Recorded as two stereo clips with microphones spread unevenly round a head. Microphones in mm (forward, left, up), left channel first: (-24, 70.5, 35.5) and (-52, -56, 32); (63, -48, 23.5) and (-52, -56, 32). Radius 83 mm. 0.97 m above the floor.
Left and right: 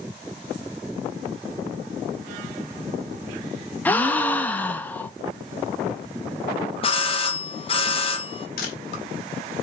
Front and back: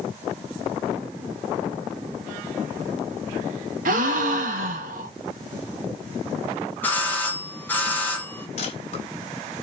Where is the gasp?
155° left, 0.9 m.